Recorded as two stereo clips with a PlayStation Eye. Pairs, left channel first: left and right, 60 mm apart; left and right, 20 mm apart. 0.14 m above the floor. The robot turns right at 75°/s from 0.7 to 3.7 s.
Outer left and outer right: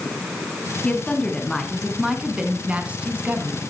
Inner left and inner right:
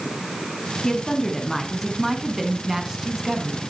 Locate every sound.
0.8 s a woman speaking: 20° left (ahead or behind), 1.4 m; by 3.6 s 15° right (ahead or behind), 1.4 m